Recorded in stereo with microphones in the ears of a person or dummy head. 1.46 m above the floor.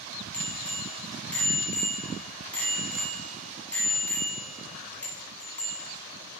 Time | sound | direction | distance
0.3 | a bicycle bell | 10° left (ahead or behind) | 7 m